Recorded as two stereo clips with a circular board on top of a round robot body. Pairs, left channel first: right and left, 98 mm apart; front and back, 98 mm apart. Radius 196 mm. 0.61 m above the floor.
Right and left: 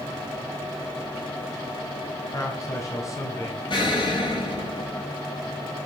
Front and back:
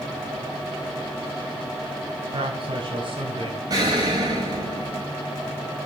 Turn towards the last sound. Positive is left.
turn(degrees=-130)